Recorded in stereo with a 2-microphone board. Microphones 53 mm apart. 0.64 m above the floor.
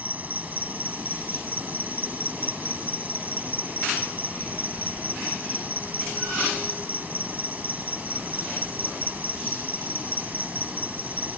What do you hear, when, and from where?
0.0 s an insect: 35° right (ahead or behind)